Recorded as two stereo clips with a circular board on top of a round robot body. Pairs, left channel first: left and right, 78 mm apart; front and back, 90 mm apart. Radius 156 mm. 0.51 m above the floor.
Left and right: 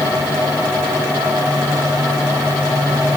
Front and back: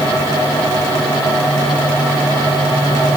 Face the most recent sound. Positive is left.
No sound to turn to.